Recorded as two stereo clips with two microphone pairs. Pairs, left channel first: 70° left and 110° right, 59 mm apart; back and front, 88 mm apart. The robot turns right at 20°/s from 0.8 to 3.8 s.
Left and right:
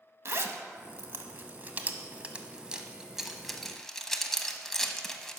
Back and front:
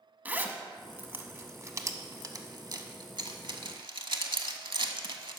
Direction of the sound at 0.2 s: 70° right.